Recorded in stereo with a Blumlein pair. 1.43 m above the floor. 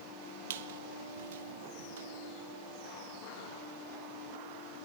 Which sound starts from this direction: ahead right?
A squeak, at 0.5 s.